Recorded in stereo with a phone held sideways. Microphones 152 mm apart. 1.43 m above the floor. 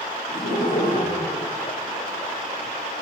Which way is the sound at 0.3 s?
85° left.